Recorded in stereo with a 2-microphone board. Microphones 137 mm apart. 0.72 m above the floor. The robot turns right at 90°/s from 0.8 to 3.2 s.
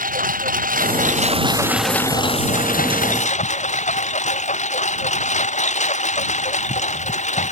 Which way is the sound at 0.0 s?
95° right.